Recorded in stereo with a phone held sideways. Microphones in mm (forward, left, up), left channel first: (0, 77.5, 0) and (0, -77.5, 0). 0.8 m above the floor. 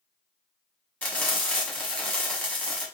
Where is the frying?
10° left (ahead or behind), 1.4 m.